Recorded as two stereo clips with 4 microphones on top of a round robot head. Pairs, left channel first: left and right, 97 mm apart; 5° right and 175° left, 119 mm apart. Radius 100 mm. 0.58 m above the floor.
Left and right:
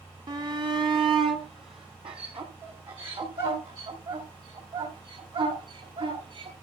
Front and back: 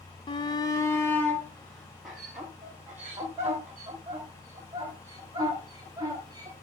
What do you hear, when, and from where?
0.3 s a shout: 45° right, 1.3 m; by 6.5 s 120° right, 4.5 m